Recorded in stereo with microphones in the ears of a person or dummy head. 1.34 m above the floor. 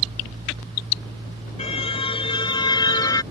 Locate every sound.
1.6 s a car horn: 30° left (ahead or behind); by 3.2 s 20° left (ahead or behind)